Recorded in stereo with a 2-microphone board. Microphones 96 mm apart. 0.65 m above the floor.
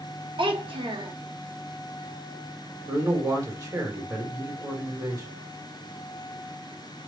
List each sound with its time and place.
0.4 s a child speaking: 60° right (ahead or behind), 0.7 m
2.9 s a man speaking: 35° right (ahead or behind), 1.4 m